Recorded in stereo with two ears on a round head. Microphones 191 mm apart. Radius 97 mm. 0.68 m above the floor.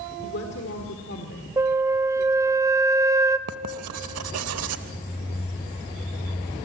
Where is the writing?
80° right, 1.0 m.